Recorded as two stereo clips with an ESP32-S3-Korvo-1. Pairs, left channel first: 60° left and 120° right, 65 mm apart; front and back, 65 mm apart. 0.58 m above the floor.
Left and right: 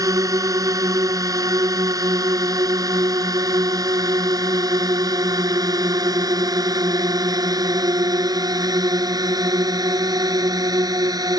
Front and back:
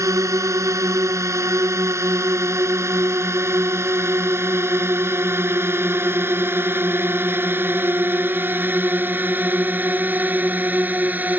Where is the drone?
145° right; by 11.4 s 120° right.